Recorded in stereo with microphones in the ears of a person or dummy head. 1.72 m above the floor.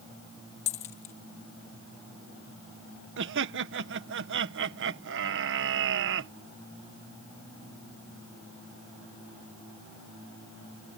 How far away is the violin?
I don't hear a violin.